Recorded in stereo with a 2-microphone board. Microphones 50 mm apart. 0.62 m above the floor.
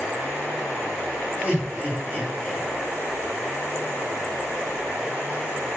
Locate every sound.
1.4 s laughter: 30° right (ahead or behind), 2 m